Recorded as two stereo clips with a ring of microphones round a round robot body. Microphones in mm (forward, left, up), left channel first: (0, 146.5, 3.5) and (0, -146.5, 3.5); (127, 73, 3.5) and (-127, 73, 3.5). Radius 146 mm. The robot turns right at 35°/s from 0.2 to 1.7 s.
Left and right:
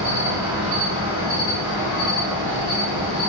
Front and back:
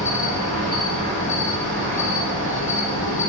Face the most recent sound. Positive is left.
turn(degrees=-5)